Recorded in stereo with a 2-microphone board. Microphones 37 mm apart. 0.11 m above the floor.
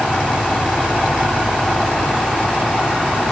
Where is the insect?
75° left (ahead or behind), 2.5 m.